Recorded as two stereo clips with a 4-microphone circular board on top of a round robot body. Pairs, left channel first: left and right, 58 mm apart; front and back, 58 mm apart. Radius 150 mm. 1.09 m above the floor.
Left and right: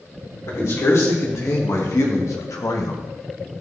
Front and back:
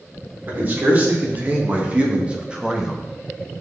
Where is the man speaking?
125° left, 3.5 m; by 3.0 s 95° left, 1.6 m.